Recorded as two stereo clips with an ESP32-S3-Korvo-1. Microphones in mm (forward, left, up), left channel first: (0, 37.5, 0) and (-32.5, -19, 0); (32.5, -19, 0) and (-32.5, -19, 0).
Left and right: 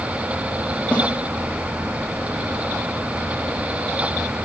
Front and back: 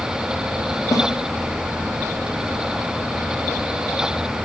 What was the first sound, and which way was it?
A snare drum, 10° right.